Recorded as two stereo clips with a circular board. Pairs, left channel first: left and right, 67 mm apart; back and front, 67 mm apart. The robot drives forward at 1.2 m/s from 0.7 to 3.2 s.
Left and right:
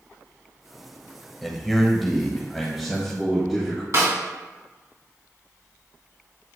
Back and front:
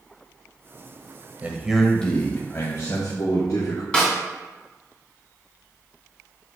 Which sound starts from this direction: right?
A snare drum, at 3.9 s.